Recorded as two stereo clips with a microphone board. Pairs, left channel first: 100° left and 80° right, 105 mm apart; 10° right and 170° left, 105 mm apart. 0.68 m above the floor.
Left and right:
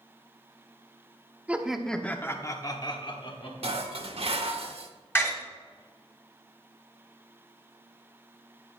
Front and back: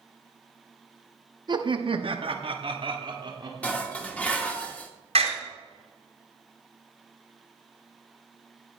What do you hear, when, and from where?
1.5 s laughter: 150° right, 0.9 m; by 3.8 s 125° left, 1.8 m
3.6 s dishes clattering: 85° right, 1.1 m
5.2 s a door slam: 170° left, 2.5 m